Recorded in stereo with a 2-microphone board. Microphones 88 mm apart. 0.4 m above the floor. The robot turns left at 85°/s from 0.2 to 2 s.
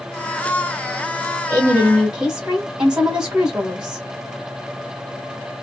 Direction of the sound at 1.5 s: 120° right.